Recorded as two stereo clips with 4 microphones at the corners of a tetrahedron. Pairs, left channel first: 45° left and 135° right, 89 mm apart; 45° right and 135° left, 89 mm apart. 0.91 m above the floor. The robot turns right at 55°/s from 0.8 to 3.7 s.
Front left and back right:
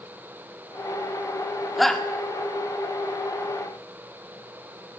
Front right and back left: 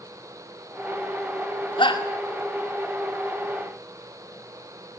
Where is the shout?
45° right, 2.5 m; by 2.0 s 30° right, 2.5 m.